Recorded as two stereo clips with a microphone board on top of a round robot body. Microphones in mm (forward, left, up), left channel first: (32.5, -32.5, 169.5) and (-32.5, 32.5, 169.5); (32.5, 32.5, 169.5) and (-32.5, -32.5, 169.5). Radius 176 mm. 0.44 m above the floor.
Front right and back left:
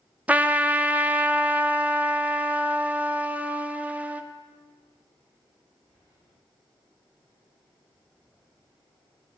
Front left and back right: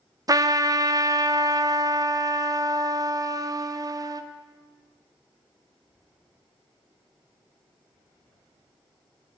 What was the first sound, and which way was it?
A trumpet, 160° right.